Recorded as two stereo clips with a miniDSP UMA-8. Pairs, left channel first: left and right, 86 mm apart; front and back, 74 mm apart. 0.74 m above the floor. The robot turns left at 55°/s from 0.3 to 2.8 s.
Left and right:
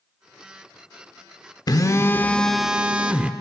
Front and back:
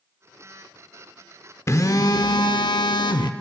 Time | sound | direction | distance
1.7 | a phone buzzing | 50° left | 0.9 m